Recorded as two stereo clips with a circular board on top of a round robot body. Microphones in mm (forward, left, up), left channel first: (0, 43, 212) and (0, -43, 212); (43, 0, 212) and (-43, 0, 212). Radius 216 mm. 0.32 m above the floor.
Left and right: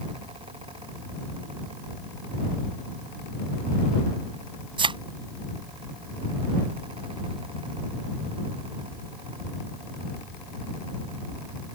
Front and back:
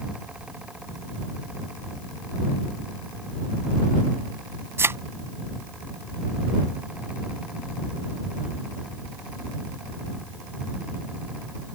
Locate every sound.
4.8 s a thud: 115° right